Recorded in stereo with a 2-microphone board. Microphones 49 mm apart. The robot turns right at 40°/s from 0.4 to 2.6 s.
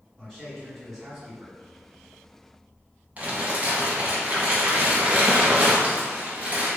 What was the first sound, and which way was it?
A man speaking, 165° left.